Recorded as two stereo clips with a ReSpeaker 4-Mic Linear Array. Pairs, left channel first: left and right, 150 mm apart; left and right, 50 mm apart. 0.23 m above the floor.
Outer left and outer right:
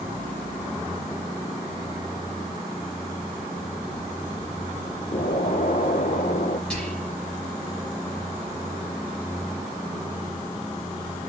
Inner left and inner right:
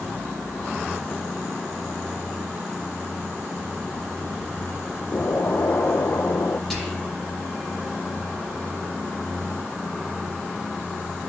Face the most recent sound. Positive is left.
turn(degrees=5)  # may be behind; listen again after turning